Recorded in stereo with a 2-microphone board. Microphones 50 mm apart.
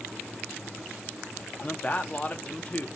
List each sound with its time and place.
1.6 s a man speaking: 30° left (ahead or behind), 0.5 m